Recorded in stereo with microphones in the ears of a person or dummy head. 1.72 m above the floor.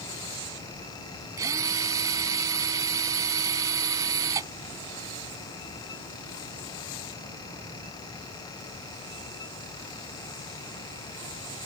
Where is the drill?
20° right (ahead or behind).